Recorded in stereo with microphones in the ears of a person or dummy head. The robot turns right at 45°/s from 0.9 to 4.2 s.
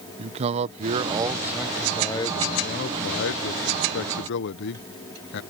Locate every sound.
0.2 s a man speaking: 35° right; by 5.4 s 110° left